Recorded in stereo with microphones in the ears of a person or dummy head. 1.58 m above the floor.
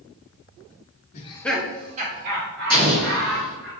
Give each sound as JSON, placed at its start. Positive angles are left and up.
{"t": 1.1, "sound": "laughter", "side_deg": 35, "distance_m": 0.7}
{"t": 2.7, "sound": "an explosion", "side_deg": -55, "distance_m": 1.3}